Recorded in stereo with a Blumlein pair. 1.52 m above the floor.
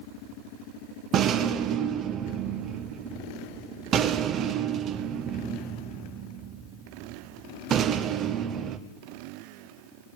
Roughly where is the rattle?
Ahead right.